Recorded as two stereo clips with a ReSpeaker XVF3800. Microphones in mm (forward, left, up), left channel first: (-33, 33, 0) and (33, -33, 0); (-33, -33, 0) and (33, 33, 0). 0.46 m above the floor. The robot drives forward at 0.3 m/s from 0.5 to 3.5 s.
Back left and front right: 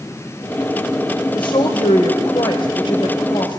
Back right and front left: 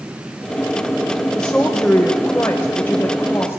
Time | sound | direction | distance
1.4 | a woman speaking | 145° left | 1.6 m